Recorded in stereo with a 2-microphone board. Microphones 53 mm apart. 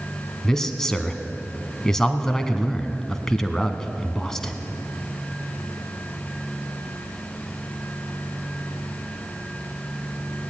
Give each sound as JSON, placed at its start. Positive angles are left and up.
{"t": 0.4, "sound": "a man speaking", "side_deg": 10, "distance_m": 1.6}